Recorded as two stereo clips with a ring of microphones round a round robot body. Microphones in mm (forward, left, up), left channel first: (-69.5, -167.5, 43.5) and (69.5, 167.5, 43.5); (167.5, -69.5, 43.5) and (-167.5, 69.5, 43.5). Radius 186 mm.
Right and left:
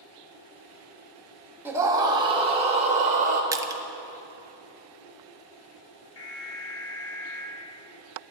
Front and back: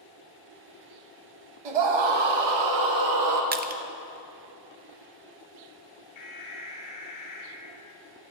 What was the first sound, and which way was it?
A scream, 150° left.